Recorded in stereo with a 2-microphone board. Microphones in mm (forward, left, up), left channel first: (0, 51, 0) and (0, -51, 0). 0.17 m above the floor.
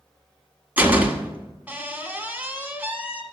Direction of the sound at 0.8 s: 15° right (ahead or behind).